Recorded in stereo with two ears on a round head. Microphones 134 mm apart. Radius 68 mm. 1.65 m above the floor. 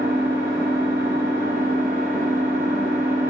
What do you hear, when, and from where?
0.0 s an engine running: 65° right (ahead or behind), 1.6 m